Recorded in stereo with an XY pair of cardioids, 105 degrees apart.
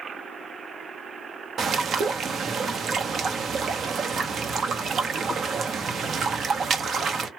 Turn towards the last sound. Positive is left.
turn(degrees=-50)